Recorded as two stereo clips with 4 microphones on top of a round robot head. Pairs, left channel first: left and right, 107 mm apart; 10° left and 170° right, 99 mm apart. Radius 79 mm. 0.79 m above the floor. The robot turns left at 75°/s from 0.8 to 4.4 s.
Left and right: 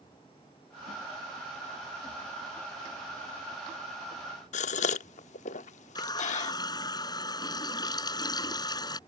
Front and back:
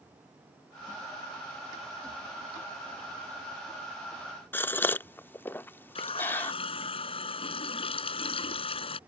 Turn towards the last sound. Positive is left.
turn(degrees=40)